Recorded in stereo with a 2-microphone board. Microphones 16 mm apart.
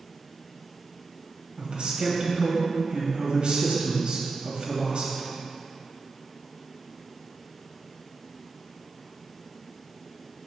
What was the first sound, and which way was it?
A man speaking, 70° right (ahead or behind).